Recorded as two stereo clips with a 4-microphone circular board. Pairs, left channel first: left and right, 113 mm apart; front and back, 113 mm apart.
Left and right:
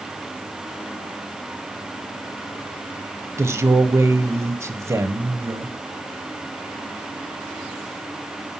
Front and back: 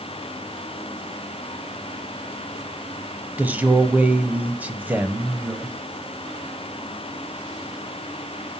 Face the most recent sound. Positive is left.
turn(degrees=-120)